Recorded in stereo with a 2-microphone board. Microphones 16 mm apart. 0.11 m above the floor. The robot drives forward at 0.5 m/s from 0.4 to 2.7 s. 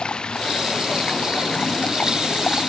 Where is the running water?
75° left (ahead or behind).